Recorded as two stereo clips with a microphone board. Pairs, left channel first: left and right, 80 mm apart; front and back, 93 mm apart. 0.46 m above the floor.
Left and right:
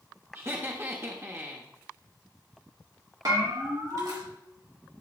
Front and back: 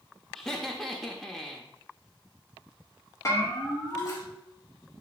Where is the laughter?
80° right, 0.8 m.